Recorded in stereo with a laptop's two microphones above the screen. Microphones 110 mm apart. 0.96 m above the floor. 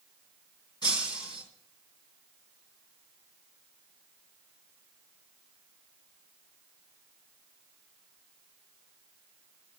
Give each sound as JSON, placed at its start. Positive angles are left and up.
{"t": 0.8, "sound": "breaking glass", "side_deg": 40, "distance_m": 2.5}